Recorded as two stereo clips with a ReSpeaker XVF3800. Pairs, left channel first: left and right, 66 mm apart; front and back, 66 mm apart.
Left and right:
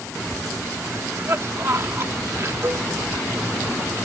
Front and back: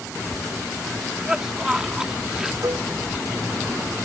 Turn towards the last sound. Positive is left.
turn(degrees=-145)